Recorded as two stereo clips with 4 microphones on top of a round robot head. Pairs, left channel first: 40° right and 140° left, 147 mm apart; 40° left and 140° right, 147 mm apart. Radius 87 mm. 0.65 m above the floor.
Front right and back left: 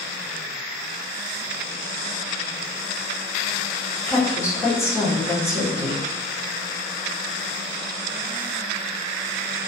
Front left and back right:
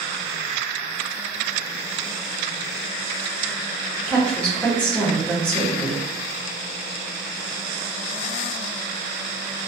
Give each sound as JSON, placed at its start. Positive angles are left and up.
{"t": 4.1, "sound": "a woman speaking", "azimuth_deg": -25, "distance_m": 0.9}